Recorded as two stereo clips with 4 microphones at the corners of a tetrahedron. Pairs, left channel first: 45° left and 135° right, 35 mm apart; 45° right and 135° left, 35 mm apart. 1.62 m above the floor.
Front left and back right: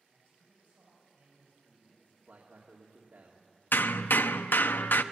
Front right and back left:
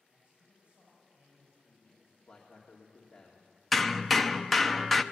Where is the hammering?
45° left, 0.7 m.